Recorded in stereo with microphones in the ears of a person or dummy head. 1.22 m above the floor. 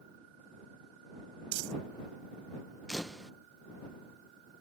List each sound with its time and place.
1.5 s crumpling: 70° right (ahead or behind)
2.9 s a camera shutter: 5° right (ahead or behind)